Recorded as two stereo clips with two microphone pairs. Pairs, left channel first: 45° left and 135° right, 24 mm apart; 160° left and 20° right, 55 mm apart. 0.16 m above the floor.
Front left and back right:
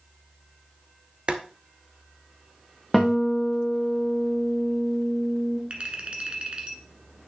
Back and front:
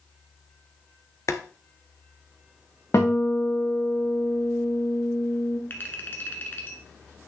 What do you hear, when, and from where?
1.3 s boiling: 175° right, 0.8 m
2.9 s a guitar: 130° left, 2.5 m
5.7 s a clink: 160° right, 1.2 m